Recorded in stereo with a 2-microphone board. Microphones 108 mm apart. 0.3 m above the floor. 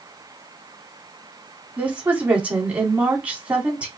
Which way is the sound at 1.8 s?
15° right (ahead or behind).